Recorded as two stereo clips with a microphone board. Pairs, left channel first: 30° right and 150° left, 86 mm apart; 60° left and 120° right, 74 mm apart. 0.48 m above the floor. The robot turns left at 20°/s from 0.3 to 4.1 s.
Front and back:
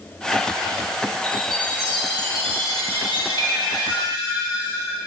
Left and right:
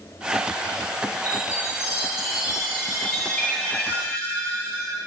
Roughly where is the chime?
Behind.